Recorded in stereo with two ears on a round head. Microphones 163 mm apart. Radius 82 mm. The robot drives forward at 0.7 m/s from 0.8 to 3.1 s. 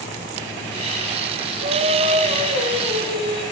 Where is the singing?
55° right (ahead or behind), 1.0 m; by 3.4 s 25° right (ahead or behind), 1.8 m.